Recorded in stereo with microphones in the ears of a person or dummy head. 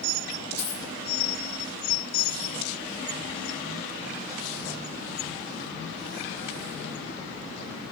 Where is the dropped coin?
35° left (ahead or behind), 1.2 m.